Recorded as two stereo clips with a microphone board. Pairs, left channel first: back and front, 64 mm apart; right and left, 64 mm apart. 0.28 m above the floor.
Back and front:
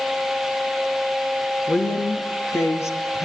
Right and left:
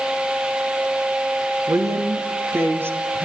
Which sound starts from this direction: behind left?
A woman speaking, at 1.7 s.